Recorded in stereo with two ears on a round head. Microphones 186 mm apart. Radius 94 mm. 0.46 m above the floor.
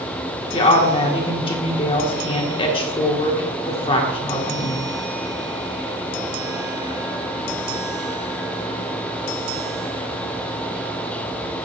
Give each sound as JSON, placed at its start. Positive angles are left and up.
{"t": 0.5, "sound": "a woman speaking", "side_deg": 25, "distance_m": 1.4}